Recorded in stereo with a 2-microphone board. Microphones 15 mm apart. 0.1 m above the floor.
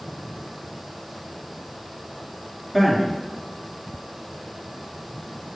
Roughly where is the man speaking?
Centre.